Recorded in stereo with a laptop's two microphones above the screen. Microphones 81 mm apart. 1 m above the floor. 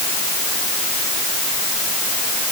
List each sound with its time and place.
Only background noise.